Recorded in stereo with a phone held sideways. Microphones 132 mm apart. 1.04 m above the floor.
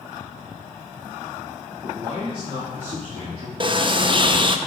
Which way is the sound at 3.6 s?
40° right (ahead or behind).